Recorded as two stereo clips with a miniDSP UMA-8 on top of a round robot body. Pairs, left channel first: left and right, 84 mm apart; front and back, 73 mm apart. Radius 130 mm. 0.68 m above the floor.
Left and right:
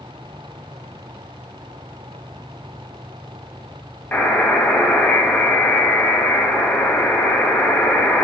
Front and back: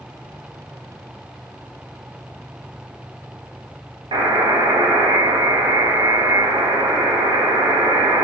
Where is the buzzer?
160° left, 1.5 m.